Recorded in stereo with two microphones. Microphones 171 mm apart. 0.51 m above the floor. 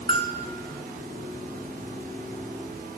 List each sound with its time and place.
0.1 s a bell: 30° left (ahead or behind), 0.9 m